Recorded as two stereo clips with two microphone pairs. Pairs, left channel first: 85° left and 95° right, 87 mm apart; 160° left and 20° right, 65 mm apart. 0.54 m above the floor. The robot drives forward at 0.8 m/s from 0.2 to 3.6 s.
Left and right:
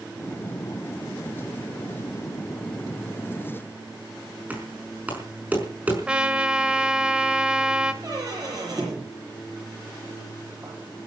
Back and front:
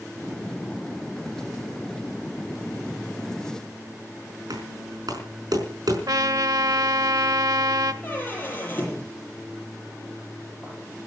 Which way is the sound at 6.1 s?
15° right.